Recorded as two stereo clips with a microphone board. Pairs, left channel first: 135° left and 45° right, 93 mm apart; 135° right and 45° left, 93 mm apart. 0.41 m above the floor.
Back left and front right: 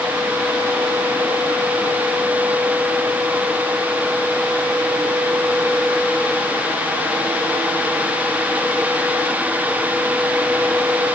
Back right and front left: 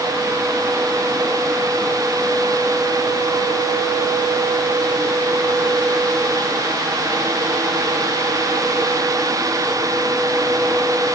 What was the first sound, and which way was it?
Only background noise.